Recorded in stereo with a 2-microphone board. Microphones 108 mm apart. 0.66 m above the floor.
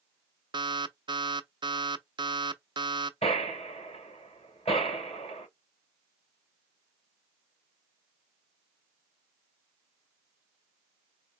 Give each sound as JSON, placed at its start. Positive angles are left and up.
{"t": 0.5, "sound": "an alarm", "side_deg": -45, "distance_m": 0.5}
{"t": 3.2, "sound": "a gunshot", "side_deg": 65, "distance_m": 3.0}